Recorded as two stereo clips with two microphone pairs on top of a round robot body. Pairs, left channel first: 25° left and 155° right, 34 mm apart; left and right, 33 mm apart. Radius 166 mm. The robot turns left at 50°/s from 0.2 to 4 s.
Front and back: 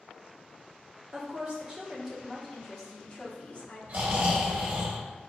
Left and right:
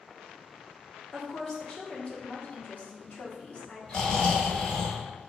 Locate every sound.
1.1 s a woman speaking: 175° left, 1.5 m; by 3.8 s 40° left, 1.5 m
3.9 s snoring: 165° left, 0.7 m; by 5.3 s 160° left, 0.7 m